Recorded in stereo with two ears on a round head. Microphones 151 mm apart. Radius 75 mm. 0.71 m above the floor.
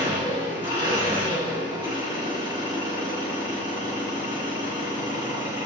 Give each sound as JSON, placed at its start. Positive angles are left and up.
{"t": 0.0, "sound": "an engine running", "side_deg": -30, "distance_m": 1.6}